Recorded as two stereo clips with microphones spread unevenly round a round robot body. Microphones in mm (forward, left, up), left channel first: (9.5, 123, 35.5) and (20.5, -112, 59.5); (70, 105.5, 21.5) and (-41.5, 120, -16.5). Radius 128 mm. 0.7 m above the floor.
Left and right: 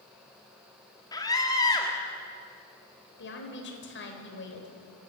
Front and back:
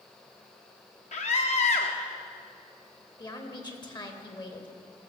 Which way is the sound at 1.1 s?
20° left.